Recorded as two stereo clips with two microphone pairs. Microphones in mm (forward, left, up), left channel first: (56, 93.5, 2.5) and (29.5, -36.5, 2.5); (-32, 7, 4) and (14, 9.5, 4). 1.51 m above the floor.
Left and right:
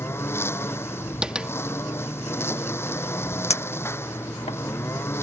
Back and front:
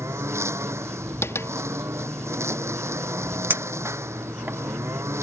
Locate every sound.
0.0 s a lawn mower: 5° left
1.2 s tapping: 175° left
3.5 s a clink: 45° left